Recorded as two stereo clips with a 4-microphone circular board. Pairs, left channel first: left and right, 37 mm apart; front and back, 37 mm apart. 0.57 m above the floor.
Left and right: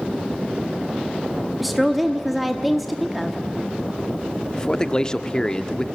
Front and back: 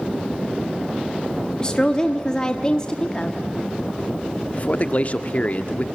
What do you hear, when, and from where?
1.6 s a woman speaking: 5° right, 1.1 m
4.5 s a man speaking: 30° left, 0.8 m